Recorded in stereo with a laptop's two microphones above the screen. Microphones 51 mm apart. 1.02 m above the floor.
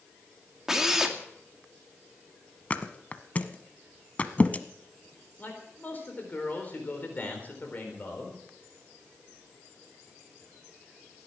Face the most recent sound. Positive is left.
turn(degrees=35)  # may be behind; listen again after turning